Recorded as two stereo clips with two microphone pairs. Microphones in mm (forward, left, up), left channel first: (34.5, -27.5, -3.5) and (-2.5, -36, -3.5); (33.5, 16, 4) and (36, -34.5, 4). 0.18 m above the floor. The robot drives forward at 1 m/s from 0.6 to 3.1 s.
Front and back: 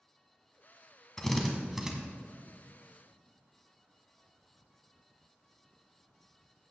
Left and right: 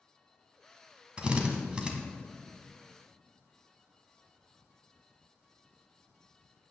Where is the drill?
50° right, 1.7 m; by 1.9 s 120° right, 1.7 m.